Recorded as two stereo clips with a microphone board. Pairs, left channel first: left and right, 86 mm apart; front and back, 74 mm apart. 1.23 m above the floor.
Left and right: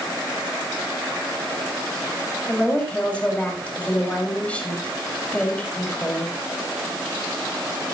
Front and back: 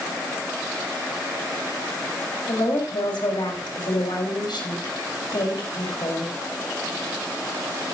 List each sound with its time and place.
2.5 s a woman speaking: 15° left, 5.5 m